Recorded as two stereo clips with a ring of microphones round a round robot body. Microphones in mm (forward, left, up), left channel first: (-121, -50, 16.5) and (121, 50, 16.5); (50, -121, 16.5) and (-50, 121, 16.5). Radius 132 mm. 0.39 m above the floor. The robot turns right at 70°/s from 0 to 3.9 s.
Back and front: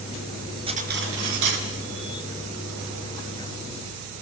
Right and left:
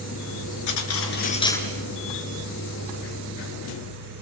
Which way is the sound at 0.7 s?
50° right.